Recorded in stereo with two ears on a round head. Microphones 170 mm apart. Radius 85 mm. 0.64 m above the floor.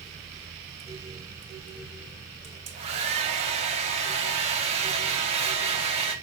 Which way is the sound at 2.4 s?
35° right (ahead or behind).